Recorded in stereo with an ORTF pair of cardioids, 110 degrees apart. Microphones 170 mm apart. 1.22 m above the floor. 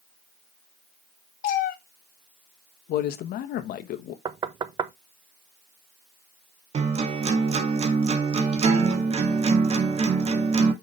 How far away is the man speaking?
About 1.1 m.